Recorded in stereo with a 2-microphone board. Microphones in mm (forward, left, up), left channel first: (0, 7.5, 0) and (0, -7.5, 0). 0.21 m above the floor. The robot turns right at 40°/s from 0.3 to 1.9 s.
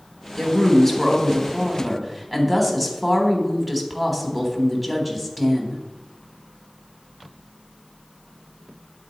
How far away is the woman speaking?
About 1.1 m.